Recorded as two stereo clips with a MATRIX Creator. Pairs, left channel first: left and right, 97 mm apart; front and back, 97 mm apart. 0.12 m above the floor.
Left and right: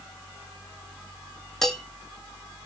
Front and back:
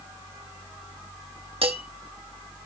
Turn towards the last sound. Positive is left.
turn(degrees=175)